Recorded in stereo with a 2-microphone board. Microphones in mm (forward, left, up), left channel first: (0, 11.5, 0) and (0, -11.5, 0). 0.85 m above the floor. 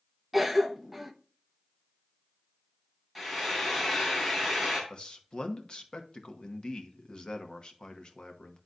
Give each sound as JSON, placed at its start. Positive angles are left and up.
{"t": 0.3, "sound": "a cough", "side_deg": -5, "distance_m": 0.8}
{"t": 3.1, "sound": "frying", "side_deg": 0, "distance_m": 3.0}
{"t": 4.9, "sound": "a man speaking", "side_deg": 45, "distance_m": 1.0}